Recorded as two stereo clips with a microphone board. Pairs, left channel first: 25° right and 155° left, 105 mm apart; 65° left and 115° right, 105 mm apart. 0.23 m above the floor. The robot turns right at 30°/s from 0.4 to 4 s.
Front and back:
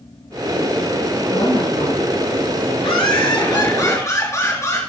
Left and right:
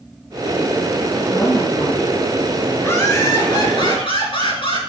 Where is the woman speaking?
5° left, 2.5 m; by 3.7 s 80° left, 2.5 m.